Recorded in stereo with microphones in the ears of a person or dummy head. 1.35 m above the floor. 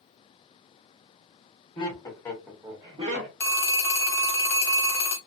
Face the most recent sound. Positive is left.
turn(degrees=10)  # may be behind; listen again after turning